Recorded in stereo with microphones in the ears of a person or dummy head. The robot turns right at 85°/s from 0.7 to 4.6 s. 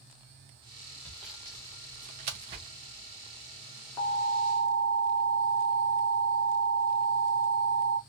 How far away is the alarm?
About 1.1 m.